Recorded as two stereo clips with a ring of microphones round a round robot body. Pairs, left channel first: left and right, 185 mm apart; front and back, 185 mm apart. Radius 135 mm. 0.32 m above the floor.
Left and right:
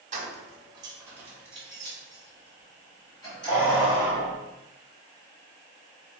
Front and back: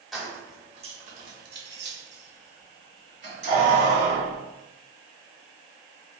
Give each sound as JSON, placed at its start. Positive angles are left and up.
{"t": 0.1, "sound": "keys jangling", "azimuth_deg": -90, "distance_m": 0.7}